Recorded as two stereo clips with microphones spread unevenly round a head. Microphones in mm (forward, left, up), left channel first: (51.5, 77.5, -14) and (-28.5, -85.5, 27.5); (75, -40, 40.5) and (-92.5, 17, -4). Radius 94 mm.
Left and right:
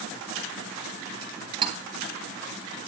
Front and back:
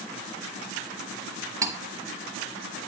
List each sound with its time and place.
1.6 s cutlery clinking: 115° right, 1.0 m